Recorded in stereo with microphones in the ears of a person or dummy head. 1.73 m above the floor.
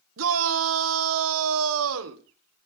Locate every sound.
0.2 s a shout: 80° right, 1.3 m